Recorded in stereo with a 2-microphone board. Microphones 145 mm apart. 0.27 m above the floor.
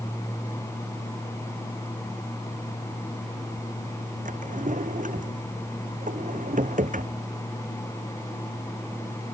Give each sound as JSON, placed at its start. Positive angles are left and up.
{"t": 4.2, "sound": "a drawer", "side_deg": -65}